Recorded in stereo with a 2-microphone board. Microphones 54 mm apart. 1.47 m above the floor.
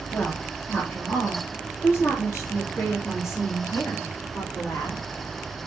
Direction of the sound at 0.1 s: 25° left (ahead or behind).